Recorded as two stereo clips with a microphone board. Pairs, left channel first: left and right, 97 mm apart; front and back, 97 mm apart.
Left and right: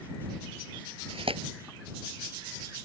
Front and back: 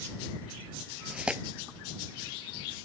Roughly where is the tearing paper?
Right.